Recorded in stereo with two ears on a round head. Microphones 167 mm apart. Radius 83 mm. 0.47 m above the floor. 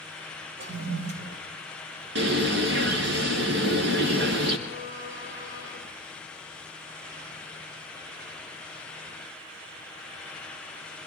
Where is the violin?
15° right (ahead or behind), 3 m.